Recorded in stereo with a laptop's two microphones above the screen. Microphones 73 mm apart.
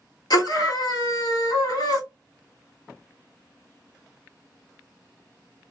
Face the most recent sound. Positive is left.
turn(degrees=65)  # may be behind; listen again after turning